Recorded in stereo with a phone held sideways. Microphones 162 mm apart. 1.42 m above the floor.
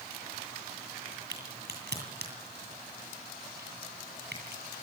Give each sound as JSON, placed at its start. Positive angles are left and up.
{"t": 1.3, "sound": "a crack", "side_deg": -85, "distance_m": 9.0}